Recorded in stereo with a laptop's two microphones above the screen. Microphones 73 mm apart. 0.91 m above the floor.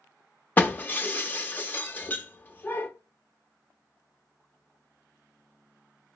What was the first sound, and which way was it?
Breaking glass, 25° left (ahead or behind).